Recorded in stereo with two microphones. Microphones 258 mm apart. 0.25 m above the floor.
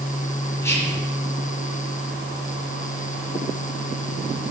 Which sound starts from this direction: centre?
Whispering, at 0.6 s.